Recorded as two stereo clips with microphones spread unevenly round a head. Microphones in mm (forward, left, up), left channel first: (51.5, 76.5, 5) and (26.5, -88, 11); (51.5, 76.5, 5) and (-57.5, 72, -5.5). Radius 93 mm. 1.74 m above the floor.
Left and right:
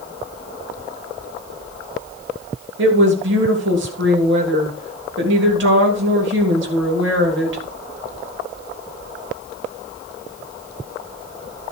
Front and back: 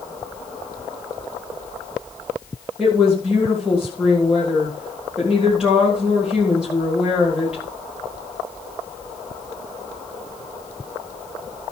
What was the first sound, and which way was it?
A woman speaking, 90° right.